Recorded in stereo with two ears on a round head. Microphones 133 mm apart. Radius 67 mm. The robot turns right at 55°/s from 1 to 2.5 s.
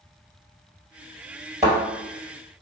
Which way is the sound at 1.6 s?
10° right (ahead or behind).